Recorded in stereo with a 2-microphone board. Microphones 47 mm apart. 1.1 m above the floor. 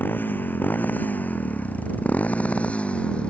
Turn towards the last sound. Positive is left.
turn(degrees=25)  # may be behind; listen again after turning